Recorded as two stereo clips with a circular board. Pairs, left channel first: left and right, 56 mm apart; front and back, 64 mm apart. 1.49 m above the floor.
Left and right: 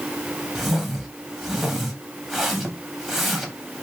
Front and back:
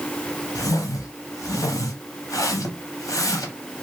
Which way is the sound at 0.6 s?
Straight ahead.